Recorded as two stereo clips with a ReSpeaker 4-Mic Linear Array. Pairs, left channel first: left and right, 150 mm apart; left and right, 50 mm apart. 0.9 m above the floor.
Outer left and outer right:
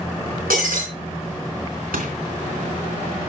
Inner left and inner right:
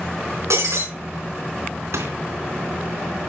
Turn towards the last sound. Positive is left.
turn(degrees=-80)